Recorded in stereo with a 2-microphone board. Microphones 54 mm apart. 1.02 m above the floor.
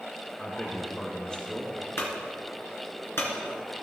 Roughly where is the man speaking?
Centre.